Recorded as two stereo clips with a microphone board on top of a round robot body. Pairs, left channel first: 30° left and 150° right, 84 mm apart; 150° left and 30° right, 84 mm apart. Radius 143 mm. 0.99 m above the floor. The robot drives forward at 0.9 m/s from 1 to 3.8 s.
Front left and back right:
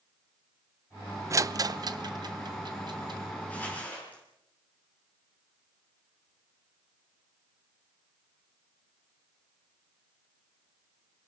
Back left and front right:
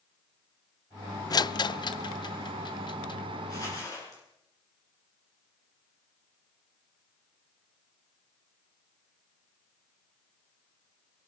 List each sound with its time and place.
1.3 s a rattle: 165° left, 0.5 m; by 3.2 s straight behind, 2 m
3.5 s crumpling: 100° left, 7 m; by 4.2 s 105° left, 7.5 m